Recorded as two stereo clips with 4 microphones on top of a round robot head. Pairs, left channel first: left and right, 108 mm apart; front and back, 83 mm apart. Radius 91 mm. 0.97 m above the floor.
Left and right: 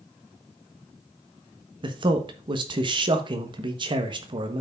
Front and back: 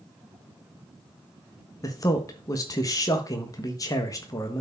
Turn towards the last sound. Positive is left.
turn(degrees=-50)